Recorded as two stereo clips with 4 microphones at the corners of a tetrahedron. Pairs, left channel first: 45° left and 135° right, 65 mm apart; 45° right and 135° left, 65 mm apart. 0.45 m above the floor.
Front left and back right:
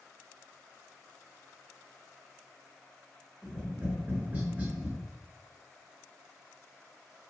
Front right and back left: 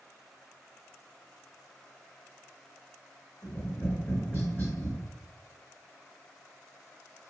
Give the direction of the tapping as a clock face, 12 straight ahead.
3 o'clock.